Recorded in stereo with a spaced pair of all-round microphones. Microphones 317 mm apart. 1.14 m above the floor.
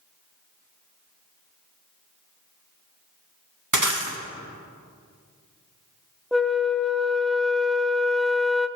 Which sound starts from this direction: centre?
A flute, at 6.3 s.